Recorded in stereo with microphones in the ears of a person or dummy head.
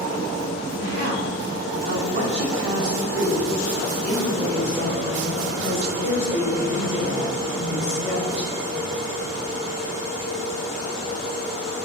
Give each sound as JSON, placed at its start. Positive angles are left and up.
{"t": 0.8, "sound": "a woman speaking", "side_deg": -75, "distance_m": 1.8}